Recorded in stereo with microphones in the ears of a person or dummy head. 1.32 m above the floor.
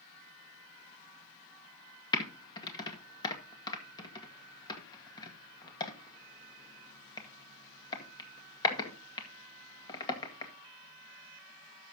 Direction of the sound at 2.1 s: 20° left (ahead or behind).